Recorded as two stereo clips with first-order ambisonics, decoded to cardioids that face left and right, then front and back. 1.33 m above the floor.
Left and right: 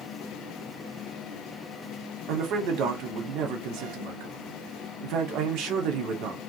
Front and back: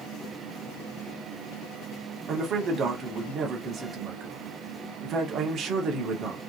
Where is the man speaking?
120° right, 0.7 m.